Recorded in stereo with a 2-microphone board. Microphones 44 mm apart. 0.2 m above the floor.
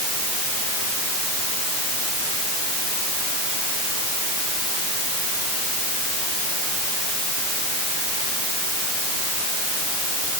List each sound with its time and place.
Only background noise.